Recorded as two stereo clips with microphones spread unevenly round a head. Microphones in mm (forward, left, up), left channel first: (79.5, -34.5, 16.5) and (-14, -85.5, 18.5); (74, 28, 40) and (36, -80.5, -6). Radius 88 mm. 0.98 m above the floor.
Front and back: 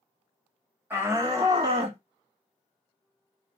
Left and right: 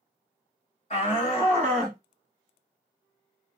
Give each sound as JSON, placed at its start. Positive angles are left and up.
{"t": 0.9, "sound": "a shout", "azimuth_deg": 130, "distance_m": 1.6}